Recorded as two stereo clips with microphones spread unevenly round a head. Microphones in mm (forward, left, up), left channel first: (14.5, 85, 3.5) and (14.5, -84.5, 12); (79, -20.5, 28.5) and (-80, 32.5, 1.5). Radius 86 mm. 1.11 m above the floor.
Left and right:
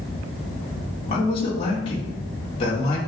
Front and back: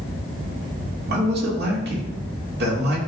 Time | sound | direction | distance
1.1 | a man speaking | 150° left | 2.5 m